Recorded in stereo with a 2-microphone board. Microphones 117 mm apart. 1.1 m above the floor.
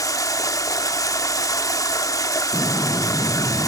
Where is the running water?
30° left (ahead or behind), 0.9 m.